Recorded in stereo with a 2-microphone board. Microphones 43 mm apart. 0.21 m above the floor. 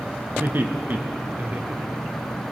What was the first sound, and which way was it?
Laughter, 50° right (ahead or behind).